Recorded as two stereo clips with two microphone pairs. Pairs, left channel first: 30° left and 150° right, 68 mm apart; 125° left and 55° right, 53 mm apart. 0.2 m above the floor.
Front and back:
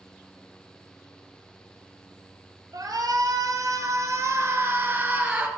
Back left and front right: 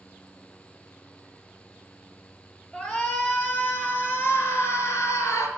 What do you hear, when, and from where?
2.7 s a shout: 165° right, 3 m; by 5.5 s 135° left, 2.5 m